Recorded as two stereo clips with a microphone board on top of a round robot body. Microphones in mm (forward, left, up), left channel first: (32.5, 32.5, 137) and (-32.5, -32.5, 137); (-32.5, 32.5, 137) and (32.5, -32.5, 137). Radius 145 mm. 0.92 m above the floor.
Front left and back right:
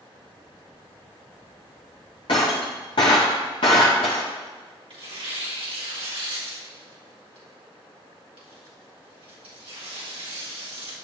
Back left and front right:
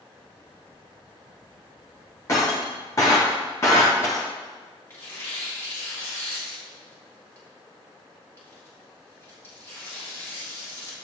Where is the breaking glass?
75° left, 0.5 m.